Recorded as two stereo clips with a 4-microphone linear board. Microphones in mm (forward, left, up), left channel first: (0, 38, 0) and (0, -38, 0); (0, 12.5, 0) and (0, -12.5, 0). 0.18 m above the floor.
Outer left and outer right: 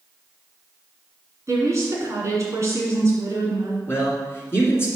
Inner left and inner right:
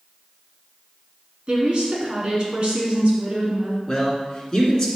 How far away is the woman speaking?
About 1.8 m.